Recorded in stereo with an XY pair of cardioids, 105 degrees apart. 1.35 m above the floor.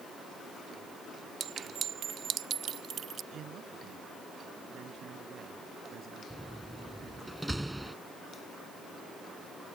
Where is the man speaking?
65° right.